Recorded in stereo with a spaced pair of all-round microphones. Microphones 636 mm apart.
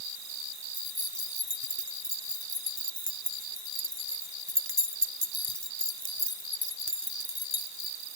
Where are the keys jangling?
20° right (ahead or behind).